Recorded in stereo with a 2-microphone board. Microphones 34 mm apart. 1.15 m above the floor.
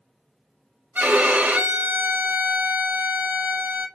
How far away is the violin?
About 0.7 m.